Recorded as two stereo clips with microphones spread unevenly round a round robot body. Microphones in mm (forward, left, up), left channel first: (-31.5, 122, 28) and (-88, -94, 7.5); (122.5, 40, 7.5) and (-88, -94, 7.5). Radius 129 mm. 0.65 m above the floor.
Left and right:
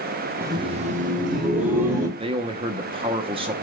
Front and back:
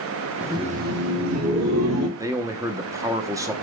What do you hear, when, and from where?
0.4 s laughter: 70° right, 0.6 m; by 2.1 s 150° right, 1.8 m
2.2 s a man speaking: 80° right, 0.6 m